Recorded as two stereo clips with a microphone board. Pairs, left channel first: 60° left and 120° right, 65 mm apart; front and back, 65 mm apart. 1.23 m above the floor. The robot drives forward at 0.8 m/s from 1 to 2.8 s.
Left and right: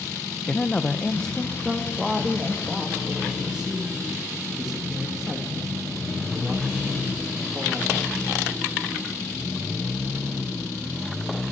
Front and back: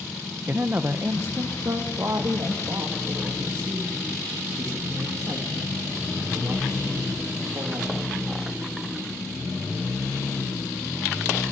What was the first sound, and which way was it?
A woman speaking, 130° left.